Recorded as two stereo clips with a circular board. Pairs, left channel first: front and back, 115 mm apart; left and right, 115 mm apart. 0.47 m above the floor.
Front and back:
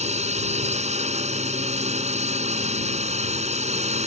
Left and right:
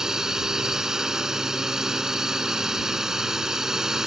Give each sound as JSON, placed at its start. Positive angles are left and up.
{"t": 0.0, "sound": "a drone", "azimuth_deg": -175}